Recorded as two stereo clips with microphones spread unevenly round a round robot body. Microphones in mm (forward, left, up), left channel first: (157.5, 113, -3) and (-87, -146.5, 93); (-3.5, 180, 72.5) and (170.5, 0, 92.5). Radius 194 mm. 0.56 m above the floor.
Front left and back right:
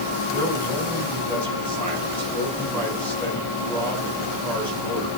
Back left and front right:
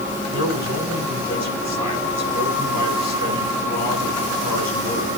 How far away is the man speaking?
About 5.5 m.